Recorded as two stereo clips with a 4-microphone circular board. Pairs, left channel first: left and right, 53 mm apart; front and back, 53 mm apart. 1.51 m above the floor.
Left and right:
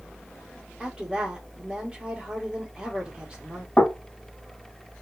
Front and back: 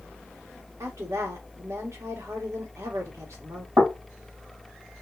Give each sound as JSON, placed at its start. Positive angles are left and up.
{"t": 0.8, "sound": "a woman speaking", "azimuth_deg": -165, "distance_m": 1.4}
{"t": 3.8, "sound": "knocking", "azimuth_deg": 165, "distance_m": 1.7}